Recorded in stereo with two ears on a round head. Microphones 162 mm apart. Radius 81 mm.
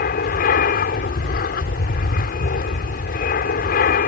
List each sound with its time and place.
0.0 s an aircraft: 50° left (ahead or behind)